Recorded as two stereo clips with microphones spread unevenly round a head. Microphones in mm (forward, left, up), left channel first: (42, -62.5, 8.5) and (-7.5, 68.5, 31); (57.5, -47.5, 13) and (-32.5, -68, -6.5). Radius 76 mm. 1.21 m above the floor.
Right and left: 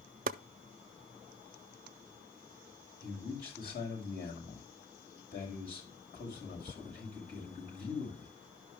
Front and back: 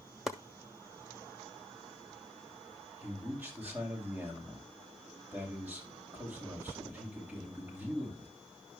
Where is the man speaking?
95° right, 7 m.